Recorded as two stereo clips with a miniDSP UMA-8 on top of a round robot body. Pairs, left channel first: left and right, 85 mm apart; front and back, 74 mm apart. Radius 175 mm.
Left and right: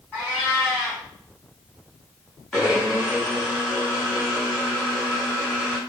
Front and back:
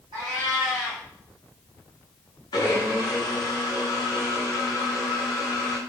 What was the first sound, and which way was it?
A cat meowing, 165° left.